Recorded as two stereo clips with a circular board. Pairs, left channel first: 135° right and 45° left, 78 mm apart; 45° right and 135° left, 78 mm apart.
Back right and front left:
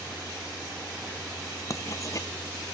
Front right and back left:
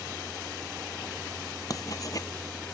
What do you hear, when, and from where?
1.7 s writing: 90° right